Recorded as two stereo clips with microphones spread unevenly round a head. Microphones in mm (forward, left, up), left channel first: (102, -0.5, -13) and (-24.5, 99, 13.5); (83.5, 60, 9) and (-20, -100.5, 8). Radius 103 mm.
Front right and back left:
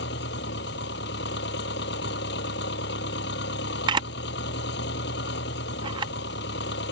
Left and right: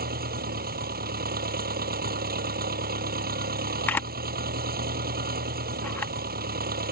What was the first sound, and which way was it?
An engine running, 80° right.